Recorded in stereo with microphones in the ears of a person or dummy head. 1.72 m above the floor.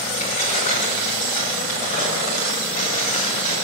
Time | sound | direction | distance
0.2 | keys jangling | 40° left (ahead or behind) | 4.5 m